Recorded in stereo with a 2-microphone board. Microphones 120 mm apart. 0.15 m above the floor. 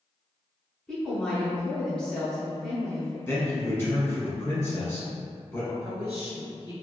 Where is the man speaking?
20° left (ahead or behind), 1.1 m.